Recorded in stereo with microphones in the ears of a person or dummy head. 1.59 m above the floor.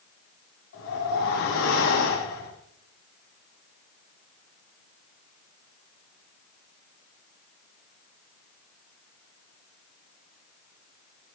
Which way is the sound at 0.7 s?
80° left.